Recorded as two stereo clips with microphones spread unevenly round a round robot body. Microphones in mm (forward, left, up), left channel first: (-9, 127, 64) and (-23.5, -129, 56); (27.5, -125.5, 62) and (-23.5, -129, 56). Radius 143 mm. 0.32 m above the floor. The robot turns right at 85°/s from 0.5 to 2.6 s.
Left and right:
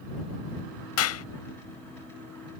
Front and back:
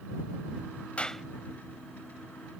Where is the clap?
75° left; by 1.2 s 95° left.